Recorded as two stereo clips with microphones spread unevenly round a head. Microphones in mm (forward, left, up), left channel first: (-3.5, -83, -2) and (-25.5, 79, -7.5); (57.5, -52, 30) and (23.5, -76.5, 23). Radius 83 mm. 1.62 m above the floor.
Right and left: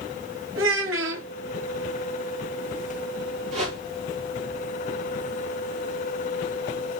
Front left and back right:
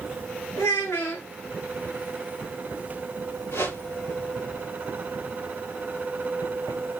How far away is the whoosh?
About 5.5 m.